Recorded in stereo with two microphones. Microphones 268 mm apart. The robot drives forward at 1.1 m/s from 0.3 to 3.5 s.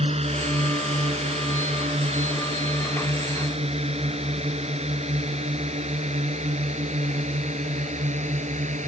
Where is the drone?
25° right (ahead or behind).